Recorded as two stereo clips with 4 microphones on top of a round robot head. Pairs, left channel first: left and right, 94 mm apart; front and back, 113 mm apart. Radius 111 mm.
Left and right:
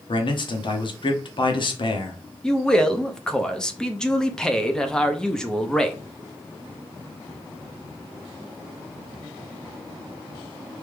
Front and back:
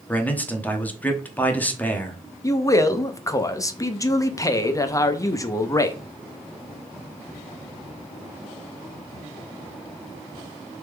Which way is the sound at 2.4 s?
15° left.